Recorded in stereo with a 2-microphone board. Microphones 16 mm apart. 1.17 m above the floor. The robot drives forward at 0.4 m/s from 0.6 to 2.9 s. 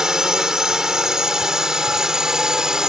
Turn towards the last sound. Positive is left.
turn(degrees=-50)  # may be behind; listen again after turning